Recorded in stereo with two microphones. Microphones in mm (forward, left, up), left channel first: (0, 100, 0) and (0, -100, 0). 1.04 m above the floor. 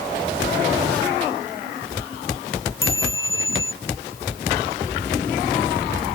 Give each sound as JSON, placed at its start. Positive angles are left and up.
{"t": 2.8, "sound": "a chime", "side_deg": 85}